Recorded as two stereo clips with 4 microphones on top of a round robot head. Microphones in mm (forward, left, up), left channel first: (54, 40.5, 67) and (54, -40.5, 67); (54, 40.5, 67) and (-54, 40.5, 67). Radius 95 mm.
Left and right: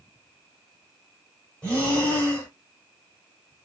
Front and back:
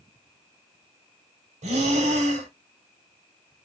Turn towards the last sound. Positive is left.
turn(degrees=170)